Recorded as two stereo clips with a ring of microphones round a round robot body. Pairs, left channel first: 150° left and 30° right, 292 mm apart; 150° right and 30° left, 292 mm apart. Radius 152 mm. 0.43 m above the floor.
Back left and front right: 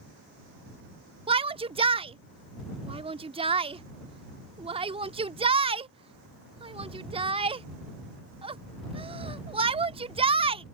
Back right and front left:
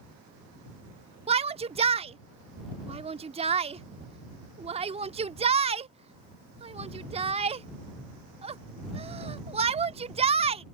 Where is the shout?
5° left.